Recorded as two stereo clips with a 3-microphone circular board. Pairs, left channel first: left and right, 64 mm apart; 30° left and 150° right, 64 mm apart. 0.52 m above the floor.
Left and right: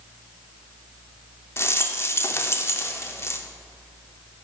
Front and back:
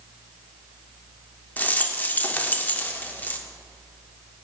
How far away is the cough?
I don't hear a cough.